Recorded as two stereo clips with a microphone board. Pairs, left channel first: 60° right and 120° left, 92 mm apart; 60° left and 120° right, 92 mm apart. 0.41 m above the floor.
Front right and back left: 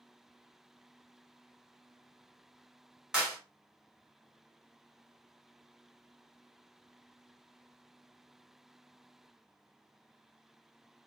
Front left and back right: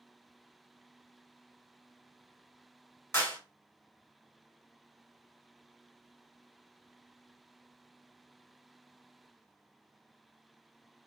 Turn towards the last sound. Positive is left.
turn(degrees=45)